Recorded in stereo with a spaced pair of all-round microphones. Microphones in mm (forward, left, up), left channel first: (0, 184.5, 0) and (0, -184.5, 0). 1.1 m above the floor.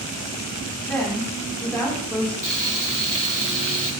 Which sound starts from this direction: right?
Frying, at 2.4 s.